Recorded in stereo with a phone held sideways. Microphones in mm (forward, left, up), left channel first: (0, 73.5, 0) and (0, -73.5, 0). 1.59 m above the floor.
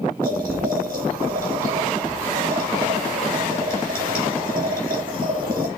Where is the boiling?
85° right, 3.5 m.